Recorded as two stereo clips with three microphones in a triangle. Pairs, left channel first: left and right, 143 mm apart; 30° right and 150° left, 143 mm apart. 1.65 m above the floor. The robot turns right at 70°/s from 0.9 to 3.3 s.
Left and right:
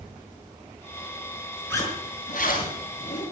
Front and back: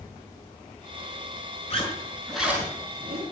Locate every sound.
1.7 s a zipper: 15° left, 5 m; by 3.2 s 120° left, 5 m